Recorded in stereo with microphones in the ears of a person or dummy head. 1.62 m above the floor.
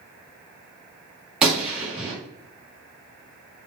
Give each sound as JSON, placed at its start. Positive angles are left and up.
{"t": 1.4, "sound": "a gunshot", "side_deg": -5, "distance_m": 0.8}